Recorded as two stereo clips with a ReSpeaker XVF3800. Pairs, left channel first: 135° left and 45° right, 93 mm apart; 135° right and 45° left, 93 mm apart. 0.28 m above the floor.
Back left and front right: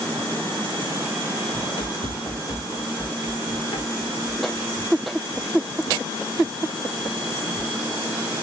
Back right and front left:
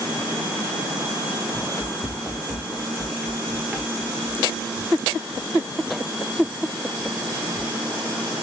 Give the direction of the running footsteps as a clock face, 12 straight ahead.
6 o'clock.